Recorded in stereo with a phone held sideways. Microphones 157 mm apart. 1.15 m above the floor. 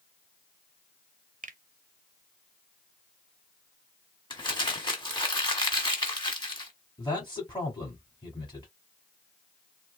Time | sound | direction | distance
1.4 | a finger snap | 55° right (ahead or behind) | 0.5 m
4.3 | crumpling | 30° left (ahead or behind) | 1.3 m
7.0 | a man speaking | 30° left (ahead or behind) | 2 m